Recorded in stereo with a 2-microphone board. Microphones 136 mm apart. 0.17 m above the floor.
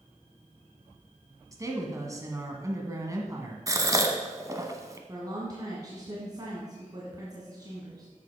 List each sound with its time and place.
1.5 s a woman speaking: 25° right (ahead or behind), 1.3 m
3.7 s a gasp: 25° right (ahead or behind), 0.9 m
5.1 s a woman speaking: 30° right (ahead or behind), 1.6 m